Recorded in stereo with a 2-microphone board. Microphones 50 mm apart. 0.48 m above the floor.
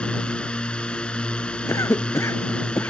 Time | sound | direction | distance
0.0 | a drone | 20° left (ahead or behind) | ?
1.7 | a cough | 85° left | ?